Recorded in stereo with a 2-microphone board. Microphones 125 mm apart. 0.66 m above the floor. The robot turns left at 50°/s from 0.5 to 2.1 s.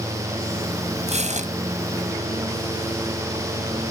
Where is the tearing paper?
65° right (ahead or behind); by 1.5 s 80° right.